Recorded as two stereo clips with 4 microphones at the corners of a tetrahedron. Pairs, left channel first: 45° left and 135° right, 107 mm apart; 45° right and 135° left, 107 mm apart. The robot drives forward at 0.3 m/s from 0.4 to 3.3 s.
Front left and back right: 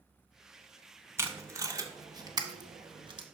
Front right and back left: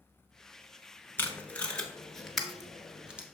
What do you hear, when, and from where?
1.2 s tape being pulled: 95° right, 0.8 m; by 3.2 s 150° right, 1.0 m